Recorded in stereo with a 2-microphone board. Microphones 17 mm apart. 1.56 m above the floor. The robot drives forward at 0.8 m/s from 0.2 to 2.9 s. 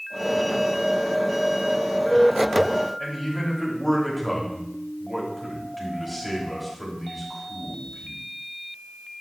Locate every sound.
3.0 s a man speaking: 5° left (ahead or behind), 3 m